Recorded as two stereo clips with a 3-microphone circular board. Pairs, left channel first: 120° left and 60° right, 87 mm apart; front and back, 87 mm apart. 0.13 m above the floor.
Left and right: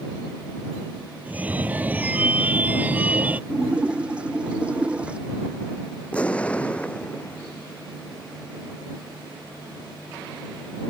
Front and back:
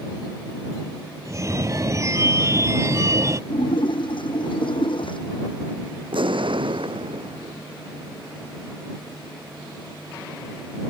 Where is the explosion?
165° right.